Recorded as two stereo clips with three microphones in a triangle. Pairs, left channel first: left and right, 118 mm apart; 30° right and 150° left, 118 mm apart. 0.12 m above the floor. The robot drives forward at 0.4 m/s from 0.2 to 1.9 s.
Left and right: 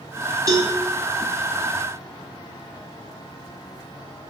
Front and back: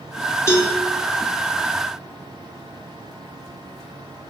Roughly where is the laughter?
No laughter in this recording.